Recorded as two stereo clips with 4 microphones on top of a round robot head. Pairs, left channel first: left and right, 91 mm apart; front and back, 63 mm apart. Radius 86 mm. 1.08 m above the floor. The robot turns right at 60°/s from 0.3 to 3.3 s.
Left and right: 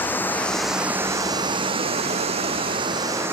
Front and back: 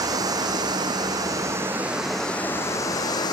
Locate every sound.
0.0 s running water: 160° left; by 3.3 s 20° right